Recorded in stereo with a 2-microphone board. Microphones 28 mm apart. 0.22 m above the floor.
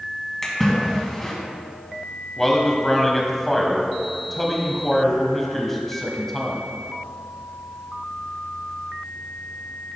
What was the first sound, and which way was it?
A splash, 15° left (ahead or behind).